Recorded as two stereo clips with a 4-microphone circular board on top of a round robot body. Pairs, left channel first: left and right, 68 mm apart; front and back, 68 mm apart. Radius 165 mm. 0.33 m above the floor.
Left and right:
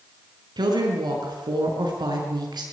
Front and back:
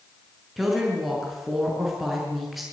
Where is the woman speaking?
90° right, 6 m.